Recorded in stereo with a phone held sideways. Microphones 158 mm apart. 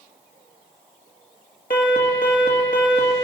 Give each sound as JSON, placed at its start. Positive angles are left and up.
{"t": 1.7, "sound": "an alarm", "side_deg": 65, "distance_m": 1.9}